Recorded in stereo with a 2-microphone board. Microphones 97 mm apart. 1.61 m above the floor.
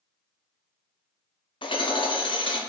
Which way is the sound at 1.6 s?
60° left (ahead or behind).